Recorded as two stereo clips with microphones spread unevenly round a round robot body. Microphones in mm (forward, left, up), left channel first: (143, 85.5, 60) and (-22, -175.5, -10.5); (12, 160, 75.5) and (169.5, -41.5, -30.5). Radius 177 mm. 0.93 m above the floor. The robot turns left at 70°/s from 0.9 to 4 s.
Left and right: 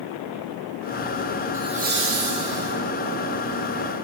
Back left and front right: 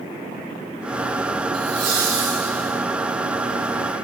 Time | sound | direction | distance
1.5 | laughter | 45° right | 2.5 m